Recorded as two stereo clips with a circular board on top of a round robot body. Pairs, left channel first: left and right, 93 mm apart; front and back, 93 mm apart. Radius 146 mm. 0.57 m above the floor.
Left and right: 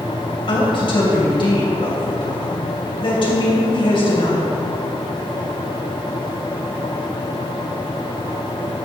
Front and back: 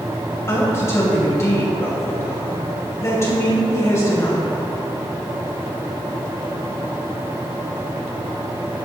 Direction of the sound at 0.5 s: 60° left.